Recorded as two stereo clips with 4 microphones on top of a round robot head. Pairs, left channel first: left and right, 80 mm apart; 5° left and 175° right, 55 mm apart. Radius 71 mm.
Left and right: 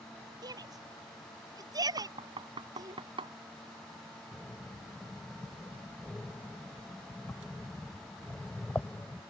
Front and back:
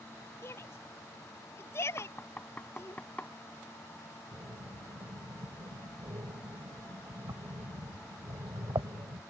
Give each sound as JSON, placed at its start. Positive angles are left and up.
{"t": 0.4, "sound": "a shout", "azimuth_deg": -50}
{"t": 2.0, "sound": "knocking", "azimuth_deg": -70}
{"t": 4.3, "sound": "breathing", "azimuth_deg": 160}